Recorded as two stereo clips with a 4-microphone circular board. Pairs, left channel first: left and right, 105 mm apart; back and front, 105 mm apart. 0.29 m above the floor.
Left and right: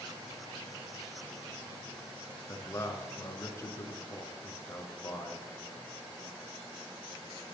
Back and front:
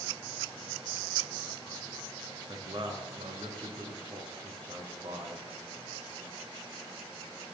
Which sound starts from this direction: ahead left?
A man speaking, at 2.5 s.